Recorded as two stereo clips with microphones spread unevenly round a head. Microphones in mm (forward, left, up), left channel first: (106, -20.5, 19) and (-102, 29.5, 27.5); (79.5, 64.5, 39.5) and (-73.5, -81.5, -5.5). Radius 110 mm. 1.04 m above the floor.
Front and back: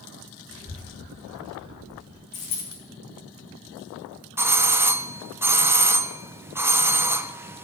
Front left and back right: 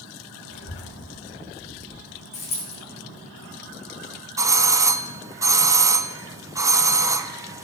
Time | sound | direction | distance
0.5 | a child speaking | 10° left | 2.5 m
2.3 | a dropped coin | 15° right | 6.5 m
4.4 | a doorbell | 120° right | 0.6 m